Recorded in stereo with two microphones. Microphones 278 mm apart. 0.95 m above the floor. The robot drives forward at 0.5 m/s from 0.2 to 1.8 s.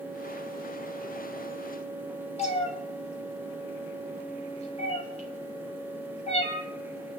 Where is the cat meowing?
25° left (ahead or behind), 3 m.